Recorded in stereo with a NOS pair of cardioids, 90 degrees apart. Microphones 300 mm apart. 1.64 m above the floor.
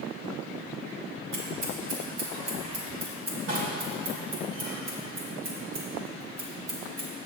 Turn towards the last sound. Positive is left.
turn(degrees=-60)